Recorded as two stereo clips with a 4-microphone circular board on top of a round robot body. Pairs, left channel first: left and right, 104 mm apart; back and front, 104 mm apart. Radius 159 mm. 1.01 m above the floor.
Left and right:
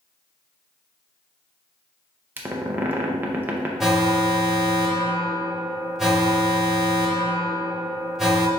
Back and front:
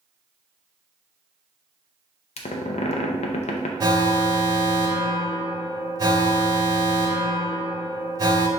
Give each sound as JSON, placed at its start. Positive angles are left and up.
{"t": 2.4, "sound": "a squeak", "azimuth_deg": -160, "distance_m": 0.6}
{"t": 3.8, "sound": "an alarm", "azimuth_deg": -5, "distance_m": 1.1}